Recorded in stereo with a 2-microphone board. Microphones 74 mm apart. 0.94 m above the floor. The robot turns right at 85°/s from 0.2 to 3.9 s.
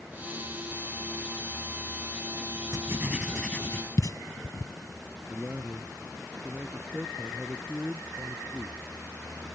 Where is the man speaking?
25° right (ahead or behind).